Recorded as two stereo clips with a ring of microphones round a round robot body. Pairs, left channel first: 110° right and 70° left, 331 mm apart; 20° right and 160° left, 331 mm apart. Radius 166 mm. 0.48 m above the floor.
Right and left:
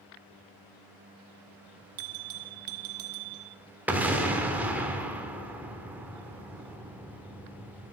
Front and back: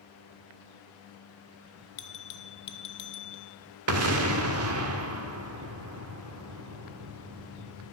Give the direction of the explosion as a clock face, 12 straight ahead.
7 o'clock.